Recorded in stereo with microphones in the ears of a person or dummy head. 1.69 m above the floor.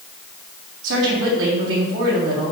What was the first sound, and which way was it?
A woman speaking, 75° right (ahead or behind).